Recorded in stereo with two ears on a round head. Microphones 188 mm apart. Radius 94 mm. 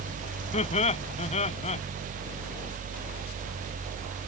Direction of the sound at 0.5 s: 30° left (ahead or behind).